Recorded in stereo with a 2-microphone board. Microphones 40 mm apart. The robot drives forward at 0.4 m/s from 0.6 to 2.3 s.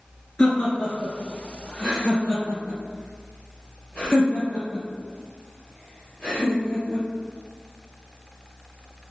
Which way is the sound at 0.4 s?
15° left (ahead or behind).